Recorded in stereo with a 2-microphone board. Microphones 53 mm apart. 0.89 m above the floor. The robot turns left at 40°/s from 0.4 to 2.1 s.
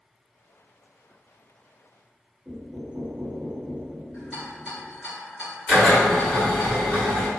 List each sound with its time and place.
2.5 s knocking: 30° right (ahead or behind), 0.9 m
4.1 s a rattle: 10° left (ahead or behind), 1.7 m
5.7 s a drill: 10° left (ahead or behind), 1.7 m